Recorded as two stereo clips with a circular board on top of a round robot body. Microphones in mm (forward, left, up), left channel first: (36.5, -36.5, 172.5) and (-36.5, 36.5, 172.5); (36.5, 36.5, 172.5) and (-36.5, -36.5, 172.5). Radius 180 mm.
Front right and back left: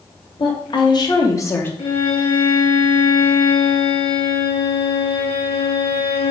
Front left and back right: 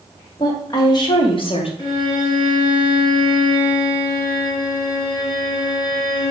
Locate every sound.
0.4 s a woman speaking: 10° right, 2 m; by 1.7 s 25° left, 1.4 m
1.8 s a violin: 5° right, 4 m